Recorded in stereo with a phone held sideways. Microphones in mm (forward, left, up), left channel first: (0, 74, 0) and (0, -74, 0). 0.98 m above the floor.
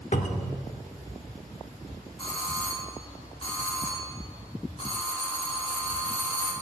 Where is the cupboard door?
55° left (ahead or behind), 1.2 m.